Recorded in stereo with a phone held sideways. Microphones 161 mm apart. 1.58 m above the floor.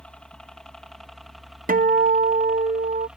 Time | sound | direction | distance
0.0 | a helicopter | 5° left (ahead or behind) | ?
1.7 | a guitar | 65° right (ahead or behind) | ?